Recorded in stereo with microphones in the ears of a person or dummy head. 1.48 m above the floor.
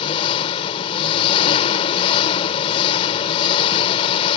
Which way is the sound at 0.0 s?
30° left (ahead or behind).